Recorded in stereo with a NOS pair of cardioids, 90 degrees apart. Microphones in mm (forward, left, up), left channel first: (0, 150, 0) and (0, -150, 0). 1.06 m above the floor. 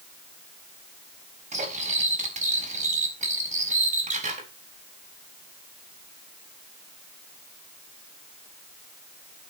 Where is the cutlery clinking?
25° right, 4.5 m.